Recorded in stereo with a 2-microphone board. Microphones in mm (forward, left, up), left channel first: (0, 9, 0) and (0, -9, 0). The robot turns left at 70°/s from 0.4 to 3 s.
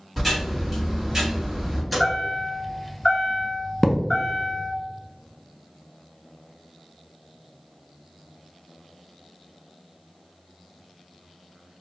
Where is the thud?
15° left (ahead or behind), 0.6 m.